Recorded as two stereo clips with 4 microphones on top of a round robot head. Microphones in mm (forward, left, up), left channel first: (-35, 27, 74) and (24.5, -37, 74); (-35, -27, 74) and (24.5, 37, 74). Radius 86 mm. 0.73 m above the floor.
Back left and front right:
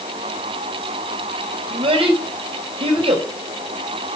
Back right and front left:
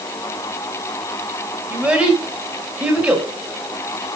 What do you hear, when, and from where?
1.7 s a child speaking: 30° right, 4 m